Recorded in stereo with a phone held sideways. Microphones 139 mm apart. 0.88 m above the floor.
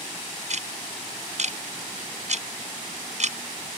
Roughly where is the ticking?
Right.